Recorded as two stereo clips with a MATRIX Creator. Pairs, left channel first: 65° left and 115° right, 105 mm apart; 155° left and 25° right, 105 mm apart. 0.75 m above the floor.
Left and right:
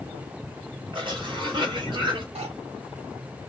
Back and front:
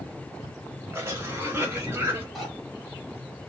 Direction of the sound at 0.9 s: 85° right.